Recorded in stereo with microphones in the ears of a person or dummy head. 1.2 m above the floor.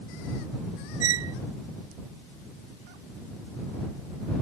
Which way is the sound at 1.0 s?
75° right (ahead or behind).